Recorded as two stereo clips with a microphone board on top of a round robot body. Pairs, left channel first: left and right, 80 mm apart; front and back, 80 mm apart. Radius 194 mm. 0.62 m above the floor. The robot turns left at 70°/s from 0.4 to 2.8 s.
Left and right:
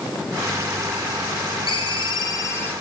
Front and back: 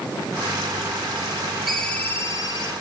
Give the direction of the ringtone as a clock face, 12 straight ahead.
9 o'clock.